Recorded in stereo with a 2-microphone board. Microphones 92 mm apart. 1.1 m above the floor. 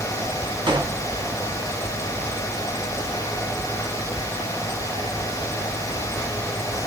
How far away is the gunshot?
About 1.0 m.